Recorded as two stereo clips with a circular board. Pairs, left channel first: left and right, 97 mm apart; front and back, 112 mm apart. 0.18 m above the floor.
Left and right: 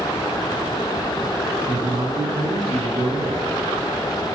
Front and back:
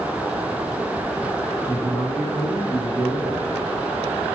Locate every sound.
1.6 s a man speaking: 70° right, 7.5 m